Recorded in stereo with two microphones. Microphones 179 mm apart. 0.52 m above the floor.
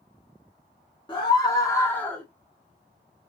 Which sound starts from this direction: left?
A scream, at 1.1 s.